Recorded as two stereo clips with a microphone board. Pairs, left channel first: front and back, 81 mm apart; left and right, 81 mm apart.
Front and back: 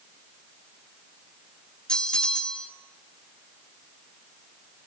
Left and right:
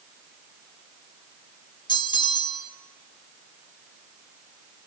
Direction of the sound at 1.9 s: 80° left.